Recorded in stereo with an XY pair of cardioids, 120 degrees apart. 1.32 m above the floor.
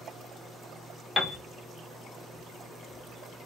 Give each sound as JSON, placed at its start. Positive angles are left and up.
{"t": 1.2, "sound": "a piano", "azimuth_deg": 20, "distance_m": 0.5}